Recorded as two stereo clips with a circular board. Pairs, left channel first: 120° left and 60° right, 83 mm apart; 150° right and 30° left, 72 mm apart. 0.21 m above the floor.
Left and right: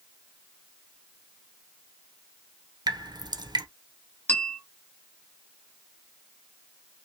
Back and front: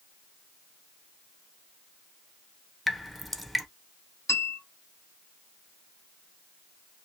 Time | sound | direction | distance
2.9 | dripping | 65° right | 0.6 m
4.3 | a bell | straight behind | 1.8 m